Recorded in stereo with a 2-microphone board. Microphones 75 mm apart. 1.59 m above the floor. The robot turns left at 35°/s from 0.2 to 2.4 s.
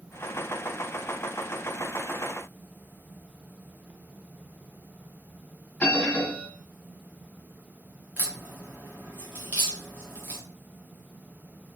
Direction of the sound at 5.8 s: 15° left (ahead or behind).